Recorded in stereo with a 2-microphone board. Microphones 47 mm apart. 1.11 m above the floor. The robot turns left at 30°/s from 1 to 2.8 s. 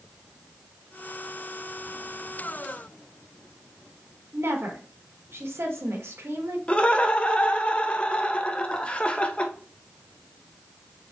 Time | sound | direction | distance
4.3 | a woman speaking | 65° right (ahead or behind) | 1.4 m
6.7 | laughter | 25° left (ahead or behind) | 0.7 m